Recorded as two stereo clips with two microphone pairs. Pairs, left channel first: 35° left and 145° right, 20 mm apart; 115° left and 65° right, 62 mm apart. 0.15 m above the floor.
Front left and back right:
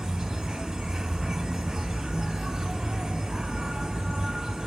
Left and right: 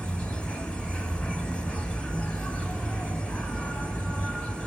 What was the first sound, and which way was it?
An insect, 175° left.